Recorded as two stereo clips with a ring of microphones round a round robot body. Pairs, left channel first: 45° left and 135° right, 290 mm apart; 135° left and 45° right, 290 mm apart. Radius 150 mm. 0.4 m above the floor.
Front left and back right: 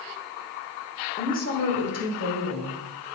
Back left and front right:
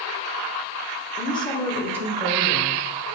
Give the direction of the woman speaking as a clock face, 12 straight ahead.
9 o'clock.